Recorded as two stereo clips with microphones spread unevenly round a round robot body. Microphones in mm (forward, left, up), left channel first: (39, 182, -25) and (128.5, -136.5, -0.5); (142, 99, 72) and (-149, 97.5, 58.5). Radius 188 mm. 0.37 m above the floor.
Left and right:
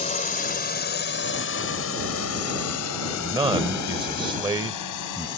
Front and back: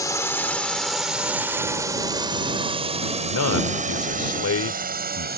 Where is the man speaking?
Straight ahead.